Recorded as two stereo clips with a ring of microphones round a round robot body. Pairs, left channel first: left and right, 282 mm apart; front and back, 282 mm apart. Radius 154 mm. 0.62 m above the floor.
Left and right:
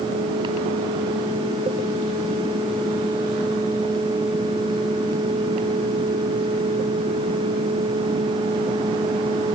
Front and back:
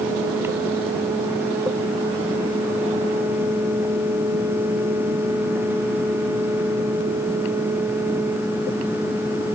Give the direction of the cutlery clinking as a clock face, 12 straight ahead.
I don't hear cutlery clinking.